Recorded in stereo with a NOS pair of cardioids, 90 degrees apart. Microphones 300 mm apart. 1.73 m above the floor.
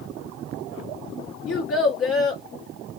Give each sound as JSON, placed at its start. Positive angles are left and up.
{"t": 1.5, "sound": "a child speaking", "azimuth_deg": 45, "distance_m": 1.6}